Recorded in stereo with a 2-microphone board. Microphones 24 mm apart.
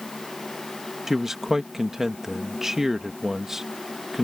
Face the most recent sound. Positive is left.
turn(degrees=-20)  # may be behind; listen again after turning